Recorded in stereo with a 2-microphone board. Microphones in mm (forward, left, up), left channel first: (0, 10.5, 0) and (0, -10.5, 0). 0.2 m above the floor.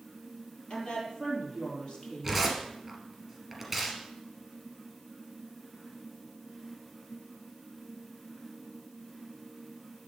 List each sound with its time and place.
0.7 s a woman speaking: 45° left (ahead or behind), 4 m
2.2 s tearing paper: 5° right (ahead or behind), 2.5 m